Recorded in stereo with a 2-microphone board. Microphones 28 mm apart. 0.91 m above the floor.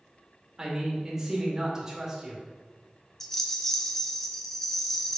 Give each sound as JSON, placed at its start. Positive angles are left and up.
{"t": 0.6, "sound": "a man speaking", "side_deg": -20, "distance_m": 1.9}
{"t": 3.2, "sound": "a rattle", "side_deg": 15, "distance_m": 0.7}